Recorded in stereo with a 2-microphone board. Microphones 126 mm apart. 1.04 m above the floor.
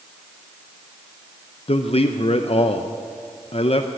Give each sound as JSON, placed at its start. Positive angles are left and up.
{"t": 1.7, "sound": "a man speaking", "side_deg": 50, "distance_m": 0.6}